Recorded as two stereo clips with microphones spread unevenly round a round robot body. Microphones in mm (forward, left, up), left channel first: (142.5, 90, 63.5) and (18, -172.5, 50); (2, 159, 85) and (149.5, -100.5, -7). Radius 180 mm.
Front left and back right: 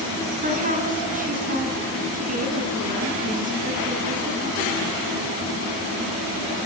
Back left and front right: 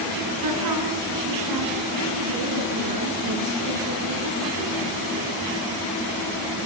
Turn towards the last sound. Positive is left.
turn(degrees=-55)